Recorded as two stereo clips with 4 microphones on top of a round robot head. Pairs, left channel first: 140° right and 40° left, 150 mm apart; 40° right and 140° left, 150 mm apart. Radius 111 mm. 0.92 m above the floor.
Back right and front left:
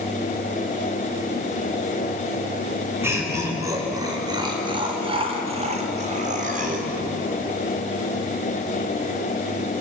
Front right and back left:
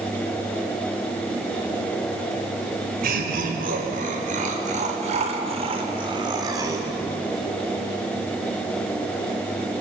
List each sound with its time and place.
3.0 s laughter: 115° left, 5.5 m; by 6.9 s 70° left, 4 m